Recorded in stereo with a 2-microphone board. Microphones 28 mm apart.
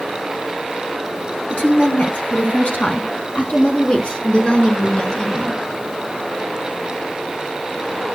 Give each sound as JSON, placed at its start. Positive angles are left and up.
{"t": 1.5, "sound": "a woman speaking", "side_deg": 65, "distance_m": 3.5}